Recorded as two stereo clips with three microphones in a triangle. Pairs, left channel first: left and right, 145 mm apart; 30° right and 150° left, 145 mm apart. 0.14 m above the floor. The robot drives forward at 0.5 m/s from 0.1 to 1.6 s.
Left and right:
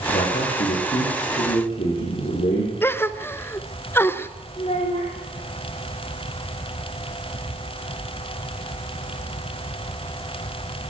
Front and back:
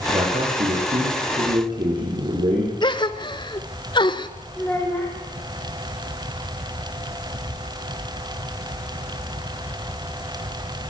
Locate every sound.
0.1 s a man speaking: 100° left, 6.5 m; by 2.7 s 110° left, 7 m
2.8 s a gasp: 15° left, 0.7 m
4.6 s a child speaking: 45° left, 7 m